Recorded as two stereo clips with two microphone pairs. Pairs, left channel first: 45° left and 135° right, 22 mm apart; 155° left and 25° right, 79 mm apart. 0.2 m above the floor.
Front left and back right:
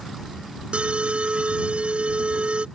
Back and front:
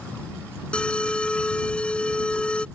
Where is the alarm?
130° right.